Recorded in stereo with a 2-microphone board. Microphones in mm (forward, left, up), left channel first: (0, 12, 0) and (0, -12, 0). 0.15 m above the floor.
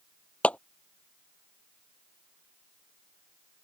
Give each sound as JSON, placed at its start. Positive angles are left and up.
{"t": 0.4, "sound": "a clap", "side_deg": 65}